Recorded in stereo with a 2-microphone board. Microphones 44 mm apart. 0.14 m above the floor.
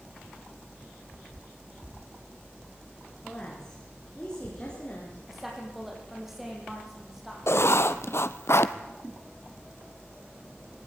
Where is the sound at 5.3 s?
5° right (ahead or behind), 6 m.